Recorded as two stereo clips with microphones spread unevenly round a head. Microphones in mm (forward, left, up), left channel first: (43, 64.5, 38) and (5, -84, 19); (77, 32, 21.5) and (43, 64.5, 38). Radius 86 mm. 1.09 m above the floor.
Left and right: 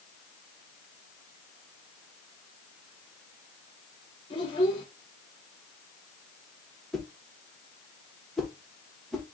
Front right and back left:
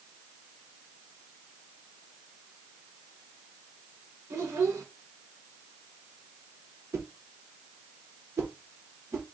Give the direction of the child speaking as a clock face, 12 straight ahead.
8 o'clock.